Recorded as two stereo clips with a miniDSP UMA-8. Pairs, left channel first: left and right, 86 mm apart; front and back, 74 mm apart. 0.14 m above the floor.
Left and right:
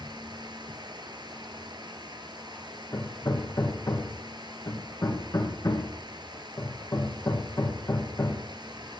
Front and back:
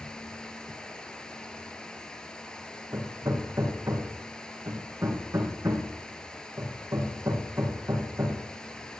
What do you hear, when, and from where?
0.0 s running water: 80° right, 0.9 m
2.9 s hammering: 135° left, 2.5 m